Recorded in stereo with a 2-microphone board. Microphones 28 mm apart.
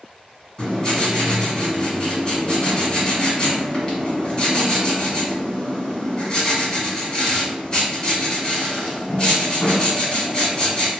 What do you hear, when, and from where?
0.6 s writing: 30° left (ahead or behind), 1.7 m